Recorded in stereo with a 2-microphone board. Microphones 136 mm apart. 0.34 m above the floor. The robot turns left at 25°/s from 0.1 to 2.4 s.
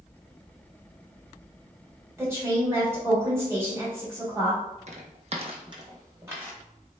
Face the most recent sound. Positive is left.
turn(degrees=-15)  # may be behind; listen again after turning